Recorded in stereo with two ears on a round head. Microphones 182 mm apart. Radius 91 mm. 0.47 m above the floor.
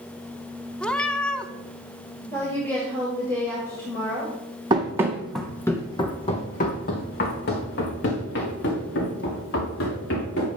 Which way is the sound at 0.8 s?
5° left (ahead or behind).